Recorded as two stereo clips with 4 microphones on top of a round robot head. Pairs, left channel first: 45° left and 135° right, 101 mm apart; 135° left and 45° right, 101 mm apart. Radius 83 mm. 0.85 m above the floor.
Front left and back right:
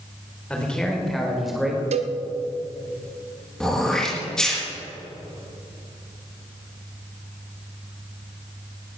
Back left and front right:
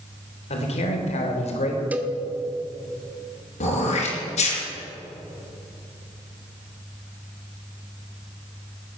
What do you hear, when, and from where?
0.5 s a man speaking: 125° left, 3.5 m; by 1.8 s 140° left, 4 m
1.9 s a cowbell: 120° right, 1.1 m
3.6 s throat clearing: 130° left, 4.5 m